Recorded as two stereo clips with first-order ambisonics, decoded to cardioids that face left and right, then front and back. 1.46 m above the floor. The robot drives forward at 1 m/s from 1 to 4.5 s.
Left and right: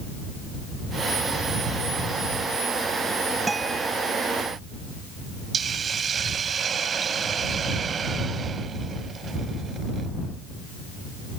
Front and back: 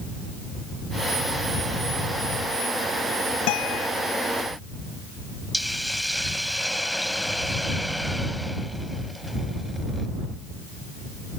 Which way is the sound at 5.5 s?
85° right.